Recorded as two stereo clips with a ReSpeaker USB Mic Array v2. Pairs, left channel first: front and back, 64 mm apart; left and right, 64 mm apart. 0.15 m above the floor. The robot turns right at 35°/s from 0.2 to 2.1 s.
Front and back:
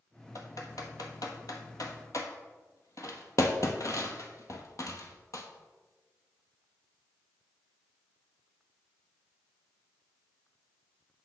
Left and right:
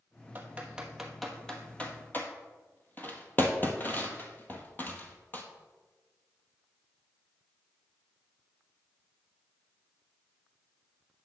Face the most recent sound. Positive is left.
turn(degrees=30)